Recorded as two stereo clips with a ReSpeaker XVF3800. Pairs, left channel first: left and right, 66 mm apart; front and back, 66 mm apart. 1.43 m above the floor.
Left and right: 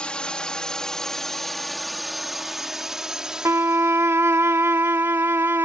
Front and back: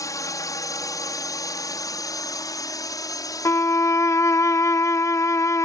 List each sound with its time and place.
0.0 s a drone: 15° left; by 5.7 s 25° right
3.5 s a violin: 40° right